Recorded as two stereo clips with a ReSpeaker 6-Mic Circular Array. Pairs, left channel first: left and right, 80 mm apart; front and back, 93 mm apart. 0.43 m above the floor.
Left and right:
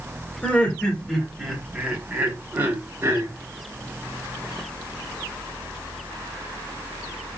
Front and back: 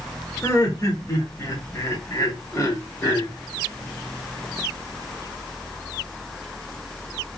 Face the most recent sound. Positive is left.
turn(degrees=-45)